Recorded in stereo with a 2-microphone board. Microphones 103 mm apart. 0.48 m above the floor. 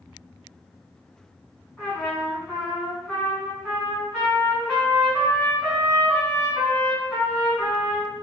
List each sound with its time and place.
1.8 s a trumpet: 15° left (ahead or behind), 2.0 m